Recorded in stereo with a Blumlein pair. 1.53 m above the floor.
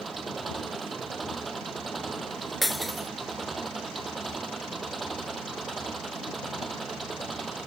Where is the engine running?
15° right.